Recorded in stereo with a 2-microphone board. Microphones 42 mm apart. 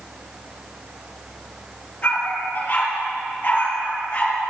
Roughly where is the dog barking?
Left.